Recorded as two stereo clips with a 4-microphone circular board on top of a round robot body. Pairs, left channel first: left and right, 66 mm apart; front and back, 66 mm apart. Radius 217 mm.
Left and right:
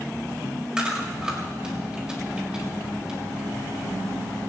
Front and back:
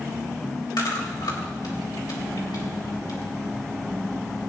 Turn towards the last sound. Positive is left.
turn(degrees=-10)